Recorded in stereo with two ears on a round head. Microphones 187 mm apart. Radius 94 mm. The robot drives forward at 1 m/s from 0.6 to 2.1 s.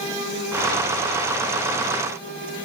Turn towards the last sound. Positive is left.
No sound to turn to.